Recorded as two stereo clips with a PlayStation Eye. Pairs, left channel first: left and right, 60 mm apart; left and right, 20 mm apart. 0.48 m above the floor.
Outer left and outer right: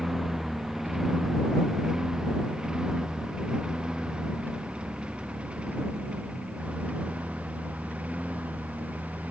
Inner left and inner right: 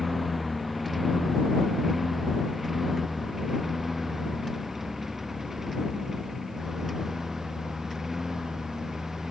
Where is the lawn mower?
5° right (ahead or behind); by 9.3 s 20° right (ahead or behind).